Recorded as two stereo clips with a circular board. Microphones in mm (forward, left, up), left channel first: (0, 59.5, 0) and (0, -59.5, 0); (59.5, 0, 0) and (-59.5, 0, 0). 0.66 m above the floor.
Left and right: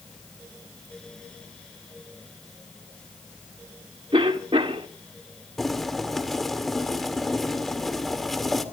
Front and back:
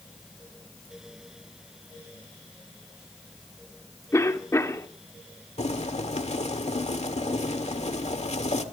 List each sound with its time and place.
4.1 s a cough: 60° right, 1.7 m
5.6 s boiling: straight ahead, 1.8 m